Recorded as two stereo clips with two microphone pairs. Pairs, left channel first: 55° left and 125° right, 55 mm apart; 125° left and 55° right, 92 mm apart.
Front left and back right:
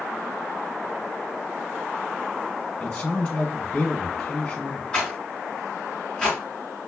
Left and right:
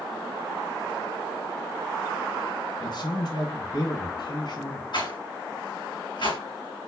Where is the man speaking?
125° left, 1.8 m.